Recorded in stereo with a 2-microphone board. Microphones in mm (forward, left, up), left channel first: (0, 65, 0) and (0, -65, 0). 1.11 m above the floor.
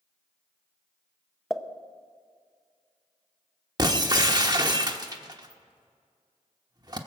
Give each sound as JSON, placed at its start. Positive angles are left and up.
{"t": 1.5, "sound": "a pop", "side_deg": 0, "distance_m": 0.7}
{"t": 3.8, "sound": "breaking glass", "side_deg": -30, "distance_m": 1.0}